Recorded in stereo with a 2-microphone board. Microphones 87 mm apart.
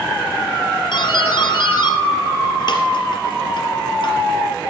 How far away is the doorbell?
About 3 m.